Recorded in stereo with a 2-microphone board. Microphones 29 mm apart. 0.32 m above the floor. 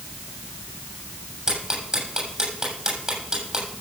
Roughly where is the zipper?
I don't hear a zipper.